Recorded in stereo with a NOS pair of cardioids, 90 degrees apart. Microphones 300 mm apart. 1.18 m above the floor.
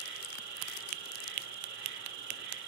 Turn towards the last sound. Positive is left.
turn(degrees=-70)